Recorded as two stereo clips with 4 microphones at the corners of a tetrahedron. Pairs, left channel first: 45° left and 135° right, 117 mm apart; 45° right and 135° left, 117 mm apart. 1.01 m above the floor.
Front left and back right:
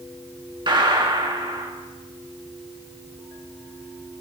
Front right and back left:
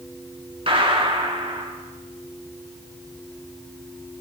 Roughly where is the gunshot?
Behind.